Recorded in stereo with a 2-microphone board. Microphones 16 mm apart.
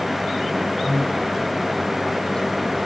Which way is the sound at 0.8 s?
35° left (ahead or behind).